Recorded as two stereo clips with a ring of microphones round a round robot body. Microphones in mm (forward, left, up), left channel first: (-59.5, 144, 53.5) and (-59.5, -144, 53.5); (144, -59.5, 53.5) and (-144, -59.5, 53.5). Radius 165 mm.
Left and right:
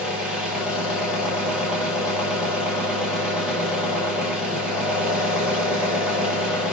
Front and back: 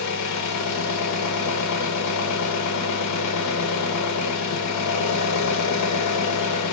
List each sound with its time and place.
0.0 s an engine running: 5° right, 0.9 m